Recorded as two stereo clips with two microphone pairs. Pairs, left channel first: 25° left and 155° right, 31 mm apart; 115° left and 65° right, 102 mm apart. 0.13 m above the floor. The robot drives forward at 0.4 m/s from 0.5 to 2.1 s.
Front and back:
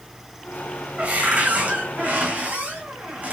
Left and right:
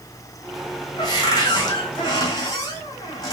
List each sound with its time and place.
1.0 s a cupboard door: 165° left, 2.5 m; by 3.3 s 170° left, 3 m